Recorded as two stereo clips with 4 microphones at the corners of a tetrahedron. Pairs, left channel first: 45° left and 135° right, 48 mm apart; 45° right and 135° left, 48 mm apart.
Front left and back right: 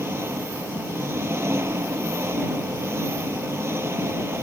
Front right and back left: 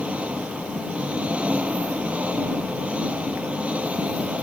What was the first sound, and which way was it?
An engine running, 165° right.